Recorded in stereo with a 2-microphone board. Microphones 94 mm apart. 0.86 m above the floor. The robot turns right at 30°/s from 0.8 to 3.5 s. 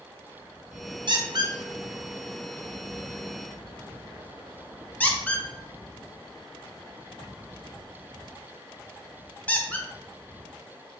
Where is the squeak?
55° right (ahead or behind), 0.5 m; by 9.9 s 15° left (ahead or behind), 0.5 m.